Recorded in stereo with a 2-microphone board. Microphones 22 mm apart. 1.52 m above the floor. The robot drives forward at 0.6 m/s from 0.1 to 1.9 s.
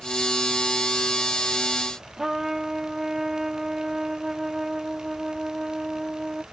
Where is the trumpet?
10° right (ahead or behind).